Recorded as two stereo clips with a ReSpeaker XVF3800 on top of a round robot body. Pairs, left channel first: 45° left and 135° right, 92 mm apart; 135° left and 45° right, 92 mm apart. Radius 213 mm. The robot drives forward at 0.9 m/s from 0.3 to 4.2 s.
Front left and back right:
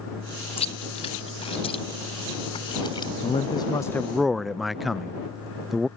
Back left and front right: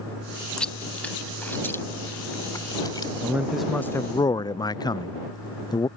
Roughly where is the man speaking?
Ahead left.